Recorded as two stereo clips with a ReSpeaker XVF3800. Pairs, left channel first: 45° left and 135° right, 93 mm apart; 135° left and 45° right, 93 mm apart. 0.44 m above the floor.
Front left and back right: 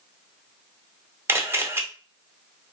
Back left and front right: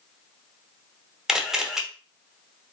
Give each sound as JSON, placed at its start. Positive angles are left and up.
{"t": 1.3, "sound": "a camera shutter", "azimuth_deg": -125, "distance_m": 0.6}